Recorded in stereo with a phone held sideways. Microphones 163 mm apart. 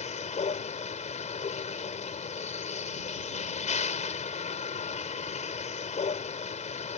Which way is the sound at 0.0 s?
45° left (ahead or behind).